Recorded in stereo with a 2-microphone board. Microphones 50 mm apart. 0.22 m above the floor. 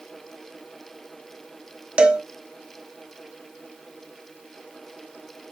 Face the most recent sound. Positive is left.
turn(degrees=-25)  # may be behind; listen again after turning